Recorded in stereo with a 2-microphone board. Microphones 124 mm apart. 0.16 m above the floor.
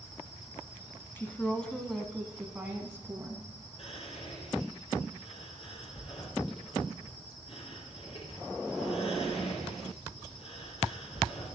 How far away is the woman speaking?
About 1.3 m.